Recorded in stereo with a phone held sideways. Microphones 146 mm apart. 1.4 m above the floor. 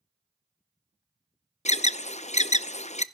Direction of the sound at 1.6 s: 50° left (ahead or behind).